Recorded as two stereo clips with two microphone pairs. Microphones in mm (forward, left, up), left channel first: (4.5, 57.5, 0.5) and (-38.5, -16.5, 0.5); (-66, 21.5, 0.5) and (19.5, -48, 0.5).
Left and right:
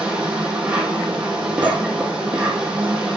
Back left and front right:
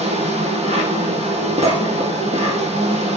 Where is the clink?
105° right, 2 m.